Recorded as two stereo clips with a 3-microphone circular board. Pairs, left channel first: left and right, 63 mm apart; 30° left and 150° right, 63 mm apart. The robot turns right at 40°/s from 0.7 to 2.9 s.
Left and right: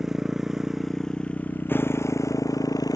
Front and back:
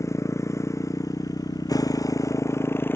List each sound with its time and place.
0.0 s a motorcycle: 5° right; by 3.0 s 85° left